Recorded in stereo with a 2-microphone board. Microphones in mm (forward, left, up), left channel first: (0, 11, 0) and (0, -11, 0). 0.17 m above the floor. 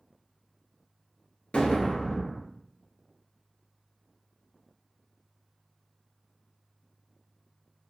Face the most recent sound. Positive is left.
turn(degrees=60)  # may be behind; listen again after turning